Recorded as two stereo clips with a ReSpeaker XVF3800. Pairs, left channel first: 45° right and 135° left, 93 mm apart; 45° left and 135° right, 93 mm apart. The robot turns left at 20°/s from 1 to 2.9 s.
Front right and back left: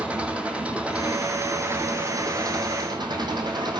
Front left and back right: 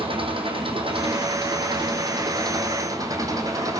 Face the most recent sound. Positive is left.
turn(degrees=175)